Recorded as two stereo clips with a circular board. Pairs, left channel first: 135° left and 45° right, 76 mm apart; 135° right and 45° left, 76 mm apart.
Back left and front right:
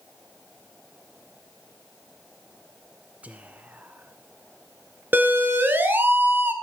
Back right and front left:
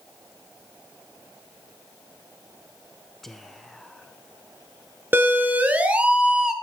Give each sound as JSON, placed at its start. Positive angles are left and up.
{"t": 3.2, "sound": "whispering", "azimuth_deg": -60, "distance_m": 1.2}
{"t": 5.1, "sound": "a siren", "azimuth_deg": 0, "distance_m": 2.5}